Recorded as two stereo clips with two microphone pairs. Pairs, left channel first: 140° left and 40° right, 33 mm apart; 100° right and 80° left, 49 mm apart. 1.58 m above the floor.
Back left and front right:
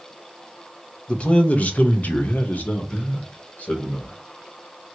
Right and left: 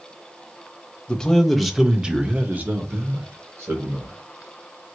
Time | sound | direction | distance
1.1 | a man speaking | 175° right | 0.9 m